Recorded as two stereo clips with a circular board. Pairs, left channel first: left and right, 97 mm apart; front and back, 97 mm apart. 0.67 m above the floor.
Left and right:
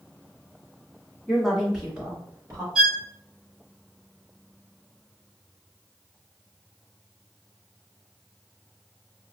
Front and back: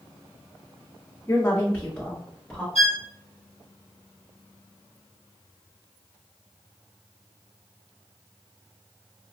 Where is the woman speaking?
15° left, 1.1 m; by 2.6 s 95° right, 1.2 m.